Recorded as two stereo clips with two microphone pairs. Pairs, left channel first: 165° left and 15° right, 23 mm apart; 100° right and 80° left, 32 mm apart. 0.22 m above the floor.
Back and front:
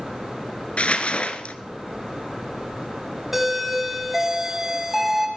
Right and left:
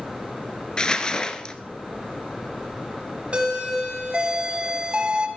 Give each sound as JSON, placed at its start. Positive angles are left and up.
{"t": 0.8, "sound": "crumpling", "azimuth_deg": -165, "distance_m": 1.1}
{"t": 3.3, "sound": "a doorbell", "azimuth_deg": 55, "distance_m": 2.5}